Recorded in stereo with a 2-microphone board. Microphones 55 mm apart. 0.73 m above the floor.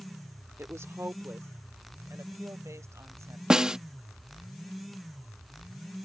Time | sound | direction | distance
0.6 | a woman speaking | 60° right (ahead or behind) | ?
3.5 | a snare drum | 15° right (ahead or behind) | ?